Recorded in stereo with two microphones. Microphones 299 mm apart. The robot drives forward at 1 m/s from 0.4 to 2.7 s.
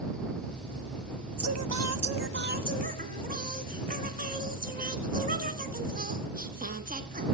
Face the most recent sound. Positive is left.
turn(degrees=-30)  # may be behind; listen again after turning